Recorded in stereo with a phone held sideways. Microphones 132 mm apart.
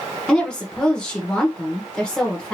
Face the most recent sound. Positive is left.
turn(degrees=5)  # may be behind; listen again after turning